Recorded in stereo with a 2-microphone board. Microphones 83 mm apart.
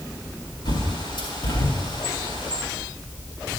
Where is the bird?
70° left (ahead or behind), 4.5 m.